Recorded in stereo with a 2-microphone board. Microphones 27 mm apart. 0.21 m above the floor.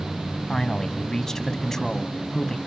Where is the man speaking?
20° left (ahead or behind), 1.2 m.